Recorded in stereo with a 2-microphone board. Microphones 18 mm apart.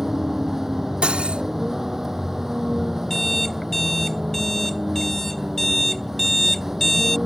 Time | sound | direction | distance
0.0 | a vehicle | 20° right (ahead or behind) | ?
1.0 | cutlery clinking | 75° right (ahead or behind) | ?
3.1 | an alarm clock | 20° left (ahead or behind) | ?